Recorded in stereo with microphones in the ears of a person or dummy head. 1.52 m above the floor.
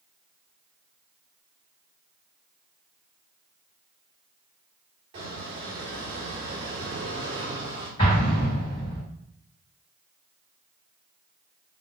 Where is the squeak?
30° right (ahead or behind), 1.2 m.